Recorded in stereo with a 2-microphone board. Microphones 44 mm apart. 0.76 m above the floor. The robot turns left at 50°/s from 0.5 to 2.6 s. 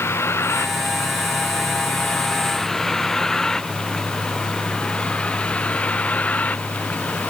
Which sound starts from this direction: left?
A vehicle, at 0.0 s.